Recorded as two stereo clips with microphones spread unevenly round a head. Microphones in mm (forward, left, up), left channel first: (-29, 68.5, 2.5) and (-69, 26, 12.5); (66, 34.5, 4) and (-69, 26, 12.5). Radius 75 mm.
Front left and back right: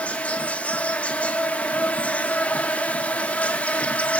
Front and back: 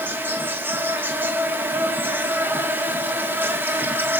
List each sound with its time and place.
0.0 s an insect: 110° left, 3 m